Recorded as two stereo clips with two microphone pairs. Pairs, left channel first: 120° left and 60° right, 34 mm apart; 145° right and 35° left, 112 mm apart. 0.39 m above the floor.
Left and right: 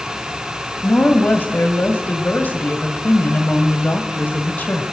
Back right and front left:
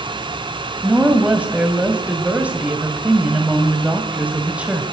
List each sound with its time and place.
0.8 s a woman speaking: 115° left, 1.7 m